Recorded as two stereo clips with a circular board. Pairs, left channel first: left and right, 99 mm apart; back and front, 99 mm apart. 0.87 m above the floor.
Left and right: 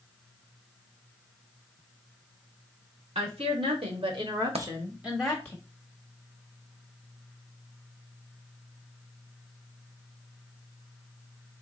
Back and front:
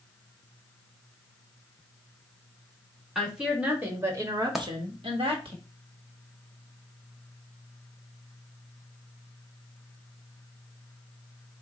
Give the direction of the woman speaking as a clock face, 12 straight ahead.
3 o'clock.